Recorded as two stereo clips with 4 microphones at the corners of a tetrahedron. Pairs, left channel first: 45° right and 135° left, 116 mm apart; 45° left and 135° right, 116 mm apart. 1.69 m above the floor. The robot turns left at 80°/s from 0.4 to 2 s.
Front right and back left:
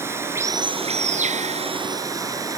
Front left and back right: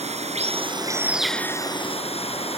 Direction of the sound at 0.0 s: 155° right.